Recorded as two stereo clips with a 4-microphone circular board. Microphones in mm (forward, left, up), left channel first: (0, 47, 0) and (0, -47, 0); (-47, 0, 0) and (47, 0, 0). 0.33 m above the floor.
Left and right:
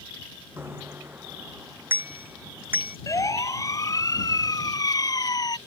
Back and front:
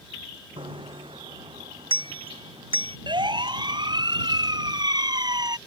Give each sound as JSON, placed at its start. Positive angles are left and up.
{"t": 0.6, "sound": "a bicycle bell", "azimuth_deg": -25}
{"t": 3.1, "sound": "a siren", "azimuth_deg": 35}